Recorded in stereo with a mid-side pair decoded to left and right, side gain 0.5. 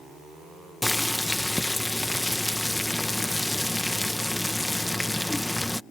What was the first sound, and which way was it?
Boiling, 10° left.